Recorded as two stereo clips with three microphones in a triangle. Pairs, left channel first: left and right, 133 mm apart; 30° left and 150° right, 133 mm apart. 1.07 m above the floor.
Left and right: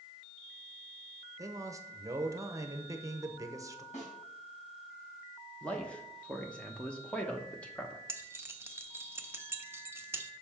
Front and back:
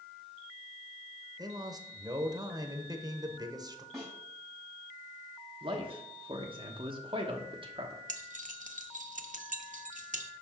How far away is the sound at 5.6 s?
About 0.9 m.